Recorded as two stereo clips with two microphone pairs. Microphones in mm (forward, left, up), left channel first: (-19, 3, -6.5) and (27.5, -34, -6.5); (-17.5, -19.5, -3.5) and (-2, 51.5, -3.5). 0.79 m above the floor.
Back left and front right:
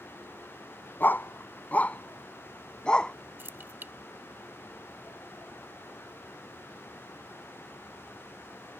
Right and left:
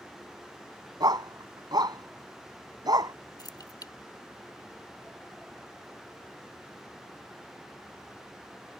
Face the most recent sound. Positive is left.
turn(degrees=-90)